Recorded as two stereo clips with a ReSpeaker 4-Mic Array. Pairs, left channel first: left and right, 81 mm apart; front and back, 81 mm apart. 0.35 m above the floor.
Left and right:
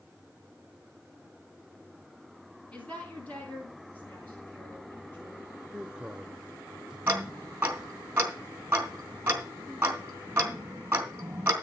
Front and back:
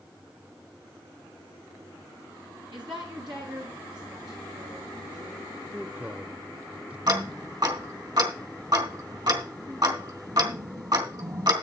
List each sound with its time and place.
2.7 s a woman speaking: 165° left, 3.5 m; by 5.6 s 155° left, 7.5 m
5.7 s a man speaking: 140° right, 0.8 m
7.1 s ticking: 155° right, 3 m